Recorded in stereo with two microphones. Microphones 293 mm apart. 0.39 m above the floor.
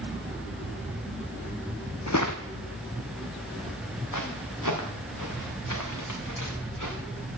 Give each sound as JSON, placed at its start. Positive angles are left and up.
{"t": 2.1, "sound": "footsteps", "side_deg": 60, "distance_m": 1.1}